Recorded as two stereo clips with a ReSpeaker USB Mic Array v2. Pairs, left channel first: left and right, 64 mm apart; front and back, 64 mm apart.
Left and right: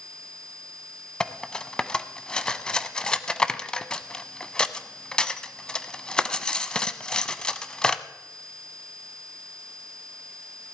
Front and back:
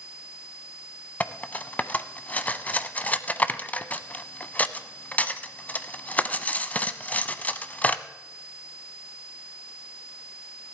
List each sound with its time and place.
1.2 s cutlery clinking: 25° left, 0.6 m